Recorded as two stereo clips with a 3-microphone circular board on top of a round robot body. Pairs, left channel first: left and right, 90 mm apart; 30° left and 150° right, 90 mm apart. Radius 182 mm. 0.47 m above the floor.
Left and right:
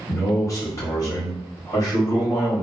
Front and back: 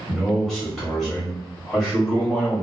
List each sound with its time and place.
0.1 s a man speaking: 110° left, 1.6 m